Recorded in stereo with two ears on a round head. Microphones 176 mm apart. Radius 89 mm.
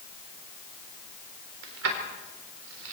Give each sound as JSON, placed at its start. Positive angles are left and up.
{"t": 1.6, "sound": "keys jangling", "side_deg": -75, "distance_m": 4.0}